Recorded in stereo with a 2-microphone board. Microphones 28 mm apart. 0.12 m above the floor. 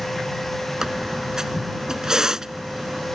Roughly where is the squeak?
Right.